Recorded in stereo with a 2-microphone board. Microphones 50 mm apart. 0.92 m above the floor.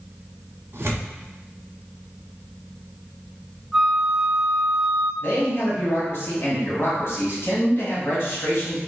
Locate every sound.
0.7 s tearing paper: 60° right (ahead or behind), 1.3 m
3.7 s a flute: centre (ahead or behind), 0.8 m
5.2 s a man speaking: 55° left (ahead or behind), 1.7 m